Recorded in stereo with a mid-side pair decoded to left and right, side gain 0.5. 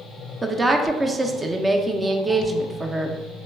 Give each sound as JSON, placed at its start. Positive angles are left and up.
{"t": 0.4, "sound": "a woman speaking", "azimuth_deg": -25, "distance_m": 0.5}